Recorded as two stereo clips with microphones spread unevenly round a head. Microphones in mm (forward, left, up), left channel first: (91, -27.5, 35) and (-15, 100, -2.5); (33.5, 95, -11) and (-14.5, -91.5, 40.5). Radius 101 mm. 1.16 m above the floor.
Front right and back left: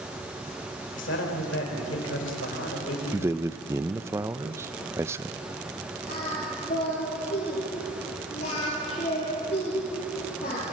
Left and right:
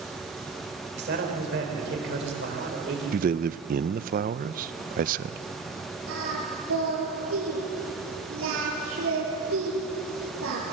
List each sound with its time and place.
0.9 s a man speaking: 70° right, 4 m
3.1 s a man speaking: 150° right, 0.5 m
6.1 s singing: 105° right, 6.5 m